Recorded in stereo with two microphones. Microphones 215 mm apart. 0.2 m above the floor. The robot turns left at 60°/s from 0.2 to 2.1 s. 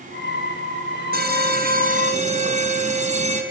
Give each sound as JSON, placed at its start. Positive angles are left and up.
{"t": 1.1, "sound": "an alarm", "azimuth_deg": -75, "distance_m": 2.5}